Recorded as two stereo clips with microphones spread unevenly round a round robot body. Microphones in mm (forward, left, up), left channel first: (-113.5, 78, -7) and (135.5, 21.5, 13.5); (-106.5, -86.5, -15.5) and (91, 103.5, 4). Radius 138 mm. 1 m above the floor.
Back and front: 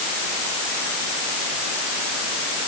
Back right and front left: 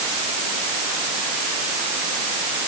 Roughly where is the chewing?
I don't hear chewing.